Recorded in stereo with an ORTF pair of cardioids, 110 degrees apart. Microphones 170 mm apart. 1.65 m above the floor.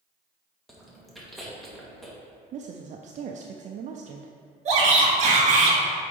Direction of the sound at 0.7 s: Straight ahead.